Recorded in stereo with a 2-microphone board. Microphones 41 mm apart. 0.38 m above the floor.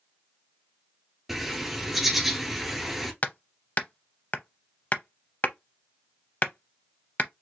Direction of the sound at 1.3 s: Centre (ahead or behind).